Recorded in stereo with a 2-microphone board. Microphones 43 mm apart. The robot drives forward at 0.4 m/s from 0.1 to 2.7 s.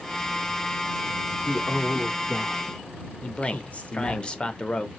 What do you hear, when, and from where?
1.4 s a man speaking: 25° left (ahead or behind), 1.1 m; by 4.2 s 35° left (ahead or behind), 0.8 m
3.2 s a man speaking: 25° left (ahead or behind), 0.6 m